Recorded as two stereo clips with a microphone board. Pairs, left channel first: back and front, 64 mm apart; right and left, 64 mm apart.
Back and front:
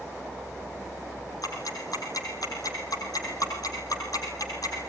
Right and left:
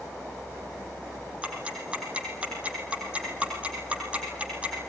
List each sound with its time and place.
1.4 s ticking: 160° left, 5 m